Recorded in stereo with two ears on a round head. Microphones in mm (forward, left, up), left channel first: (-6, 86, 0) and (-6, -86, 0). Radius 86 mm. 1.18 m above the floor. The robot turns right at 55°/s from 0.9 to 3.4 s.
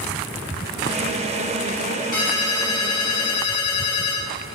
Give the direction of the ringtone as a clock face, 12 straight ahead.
11 o'clock.